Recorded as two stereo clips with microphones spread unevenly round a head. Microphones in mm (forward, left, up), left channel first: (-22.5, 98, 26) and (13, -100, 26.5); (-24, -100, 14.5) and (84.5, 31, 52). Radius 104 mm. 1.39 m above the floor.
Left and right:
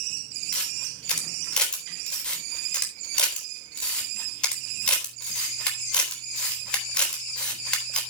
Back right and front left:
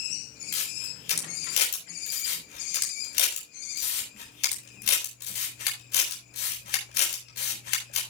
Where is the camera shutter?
175° right, 4 m.